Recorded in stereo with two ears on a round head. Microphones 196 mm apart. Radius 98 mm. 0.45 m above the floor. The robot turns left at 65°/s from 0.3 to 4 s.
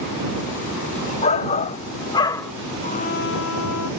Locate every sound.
1.2 s a shout: 105° left; by 2.5 s 20° left
2.8 s a trumpet: 150° left; by 3.9 s 80° left